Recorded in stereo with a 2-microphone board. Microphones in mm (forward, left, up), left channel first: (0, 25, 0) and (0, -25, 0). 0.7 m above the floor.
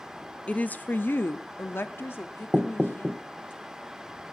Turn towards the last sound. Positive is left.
turn(degrees=-5)  # may be behind; listen again after turning